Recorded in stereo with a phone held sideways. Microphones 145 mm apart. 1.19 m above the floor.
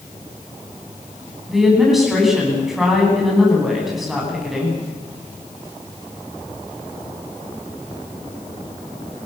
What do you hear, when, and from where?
1.5 s a woman speaking: centre (ahead or behind), 9.5 m